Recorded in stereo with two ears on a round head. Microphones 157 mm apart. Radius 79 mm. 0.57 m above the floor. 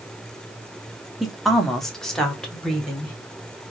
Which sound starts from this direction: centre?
A woman speaking, at 1.2 s.